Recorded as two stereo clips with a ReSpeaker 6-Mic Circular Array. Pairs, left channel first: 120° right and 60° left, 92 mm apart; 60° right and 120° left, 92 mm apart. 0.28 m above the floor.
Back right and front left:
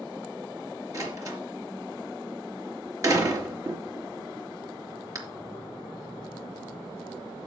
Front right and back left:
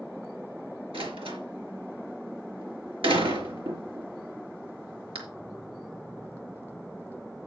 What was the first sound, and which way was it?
A door slam, 110° left.